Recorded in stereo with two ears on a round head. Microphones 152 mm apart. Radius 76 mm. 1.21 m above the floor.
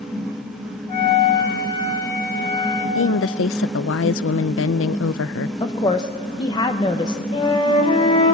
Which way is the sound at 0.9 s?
35° left (ahead or behind).